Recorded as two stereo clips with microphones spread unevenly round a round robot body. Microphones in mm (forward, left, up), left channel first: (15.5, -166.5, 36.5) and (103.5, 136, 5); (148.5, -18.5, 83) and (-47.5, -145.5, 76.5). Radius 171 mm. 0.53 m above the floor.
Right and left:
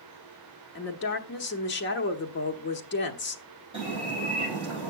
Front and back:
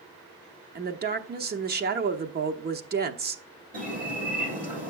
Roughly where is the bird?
Behind left.